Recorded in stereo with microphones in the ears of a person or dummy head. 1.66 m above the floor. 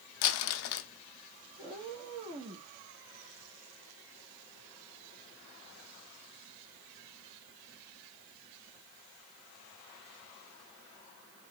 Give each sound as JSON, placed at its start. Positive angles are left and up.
{"t": 0.2, "sound": "crumpling", "side_deg": 70, "distance_m": 0.5}
{"t": 1.6, "sound": "a cat meowing", "side_deg": -30, "distance_m": 1.0}